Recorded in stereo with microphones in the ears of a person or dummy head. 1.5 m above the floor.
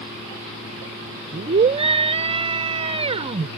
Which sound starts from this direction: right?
A scream, at 1.3 s.